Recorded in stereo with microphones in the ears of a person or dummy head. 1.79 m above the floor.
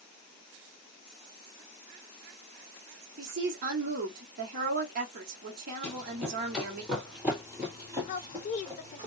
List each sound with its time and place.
3.2 s a woman speaking: 55° right (ahead or behind), 1.3 m
5.8 s running footsteps: centre (ahead or behind), 3.5 m; by 9.1 s 35° right (ahead or behind), 2.5 m
8.1 s a woman speaking: 45° left (ahead or behind), 0.5 m